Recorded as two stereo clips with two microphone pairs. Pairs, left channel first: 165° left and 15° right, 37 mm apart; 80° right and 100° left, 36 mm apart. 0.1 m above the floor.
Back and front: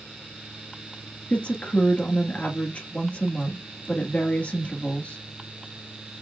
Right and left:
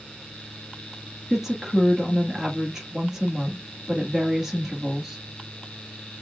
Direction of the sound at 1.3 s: 175° left.